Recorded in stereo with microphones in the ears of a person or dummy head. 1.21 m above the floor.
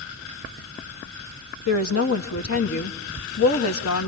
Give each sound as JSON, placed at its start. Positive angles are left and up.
{"t": 1.7, "sound": "a woman speaking", "side_deg": 80, "distance_m": 1.8}